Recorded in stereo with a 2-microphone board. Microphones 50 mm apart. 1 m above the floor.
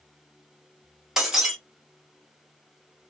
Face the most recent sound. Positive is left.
turn(degrees=-10)  # may be behind; listen again after turning